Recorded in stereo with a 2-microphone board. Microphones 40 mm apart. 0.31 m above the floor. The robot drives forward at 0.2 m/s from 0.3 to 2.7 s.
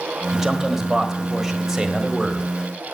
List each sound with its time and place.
0.3 s a man speaking: 10° right (ahead or behind), 1.6 m